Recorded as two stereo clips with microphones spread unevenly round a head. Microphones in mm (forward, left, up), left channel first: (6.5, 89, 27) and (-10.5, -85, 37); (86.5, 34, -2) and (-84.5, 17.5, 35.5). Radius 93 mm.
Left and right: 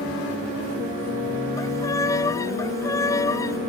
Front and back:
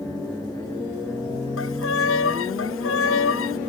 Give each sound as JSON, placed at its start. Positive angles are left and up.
{"t": 1.6, "sound": "a violin", "azimuth_deg": 10}